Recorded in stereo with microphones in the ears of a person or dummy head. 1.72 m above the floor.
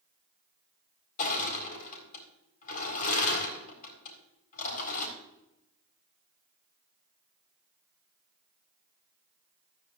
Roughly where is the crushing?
Left.